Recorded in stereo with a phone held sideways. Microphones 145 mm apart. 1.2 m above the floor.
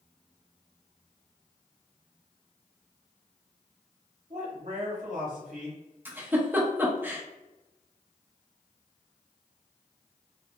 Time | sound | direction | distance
4.3 | a man speaking | 55° right (ahead or behind) | 0.7 m
6.0 | a giggle | 15° right (ahead or behind) | 0.6 m